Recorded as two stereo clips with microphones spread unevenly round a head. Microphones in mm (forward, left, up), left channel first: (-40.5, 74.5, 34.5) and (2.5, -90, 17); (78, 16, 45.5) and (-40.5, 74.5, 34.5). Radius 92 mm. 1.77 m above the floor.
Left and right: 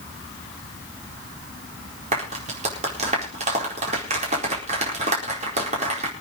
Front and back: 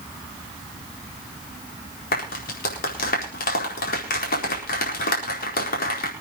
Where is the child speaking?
No child speaking in this recording.